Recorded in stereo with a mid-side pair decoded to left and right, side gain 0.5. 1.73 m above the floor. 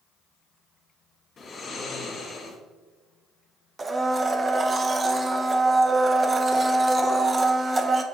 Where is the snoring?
50° left, 2.5 m.